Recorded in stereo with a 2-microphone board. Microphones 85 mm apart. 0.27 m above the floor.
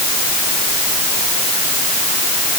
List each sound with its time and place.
Only background noise.